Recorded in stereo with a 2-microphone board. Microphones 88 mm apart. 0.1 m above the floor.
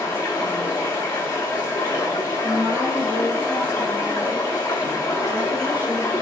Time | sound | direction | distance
0.0 | running water | 35° left (ahead or behind) | 0.9 m
2.4 | a woman speaking | 20° right (ahead or behind) | 1.1 m